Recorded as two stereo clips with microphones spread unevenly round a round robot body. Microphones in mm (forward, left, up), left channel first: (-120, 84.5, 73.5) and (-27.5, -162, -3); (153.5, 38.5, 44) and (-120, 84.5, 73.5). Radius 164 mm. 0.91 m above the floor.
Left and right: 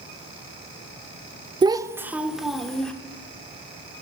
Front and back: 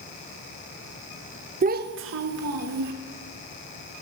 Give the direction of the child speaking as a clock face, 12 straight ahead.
4 o'clock.